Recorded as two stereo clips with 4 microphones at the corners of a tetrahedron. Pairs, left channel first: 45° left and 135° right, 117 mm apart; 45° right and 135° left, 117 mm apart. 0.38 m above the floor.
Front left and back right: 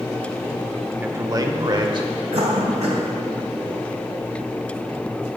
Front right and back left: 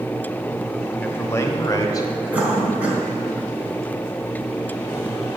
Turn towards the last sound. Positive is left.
turn(degrees=-145)